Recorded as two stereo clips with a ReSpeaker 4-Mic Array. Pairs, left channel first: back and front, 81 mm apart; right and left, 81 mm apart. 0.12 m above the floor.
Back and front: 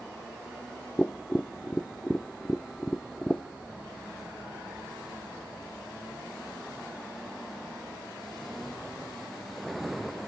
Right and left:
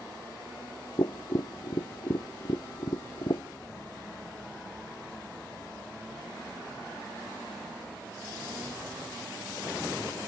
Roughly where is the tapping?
Right.